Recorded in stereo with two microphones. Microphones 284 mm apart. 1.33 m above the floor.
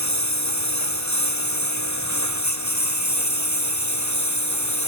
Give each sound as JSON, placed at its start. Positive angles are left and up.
{"t": 0.0, "sound": "a lawn mower", "side_deg": 75}